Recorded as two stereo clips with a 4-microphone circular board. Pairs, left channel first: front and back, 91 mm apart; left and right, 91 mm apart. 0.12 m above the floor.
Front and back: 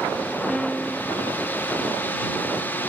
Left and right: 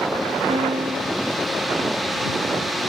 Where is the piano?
85° right.